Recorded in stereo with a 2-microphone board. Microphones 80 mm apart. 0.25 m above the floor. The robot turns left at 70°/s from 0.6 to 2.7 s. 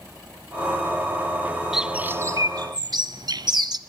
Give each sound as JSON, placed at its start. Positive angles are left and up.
{"t": 1.7, "sound": "a bird", "side_deg": -5, "distance_m": 0.6}